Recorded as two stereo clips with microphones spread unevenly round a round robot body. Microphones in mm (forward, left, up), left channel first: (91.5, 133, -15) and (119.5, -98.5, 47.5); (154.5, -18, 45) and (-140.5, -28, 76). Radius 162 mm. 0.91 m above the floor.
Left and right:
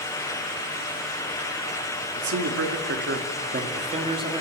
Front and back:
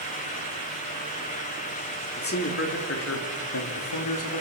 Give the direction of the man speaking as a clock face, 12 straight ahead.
2 o'clock.